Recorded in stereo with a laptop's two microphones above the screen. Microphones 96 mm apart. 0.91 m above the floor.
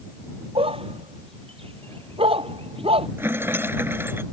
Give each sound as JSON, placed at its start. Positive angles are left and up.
{"t": 0.6, "sound": "a dog barking", "side_deg": -80}
{"t": 3.2, "sound": "a rattle", "side_deg": -25}